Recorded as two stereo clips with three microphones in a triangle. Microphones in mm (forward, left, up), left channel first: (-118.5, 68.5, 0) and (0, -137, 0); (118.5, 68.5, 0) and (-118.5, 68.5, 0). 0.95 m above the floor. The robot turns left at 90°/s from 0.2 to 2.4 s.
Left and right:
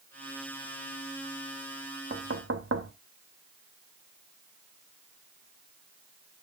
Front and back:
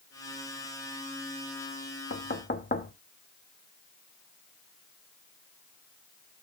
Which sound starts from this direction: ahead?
Knocking, at 2.1 s.